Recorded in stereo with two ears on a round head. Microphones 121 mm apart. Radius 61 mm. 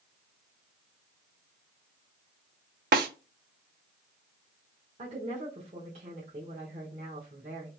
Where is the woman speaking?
45° right (ahead or behind), 1.1 m.